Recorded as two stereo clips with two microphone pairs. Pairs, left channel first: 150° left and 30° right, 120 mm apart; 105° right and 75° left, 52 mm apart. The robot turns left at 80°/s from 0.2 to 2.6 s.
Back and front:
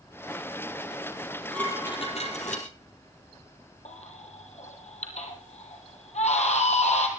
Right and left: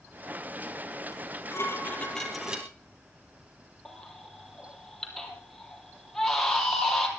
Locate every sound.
1.1 s dishes clattering: 100° right, 3.5 m; by 2.7 s 145° left, 3.5 m
3.9 s a baby crying: 170° left, 3 m